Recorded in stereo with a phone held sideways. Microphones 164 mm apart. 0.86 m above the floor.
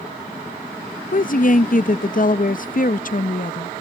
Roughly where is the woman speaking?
Left.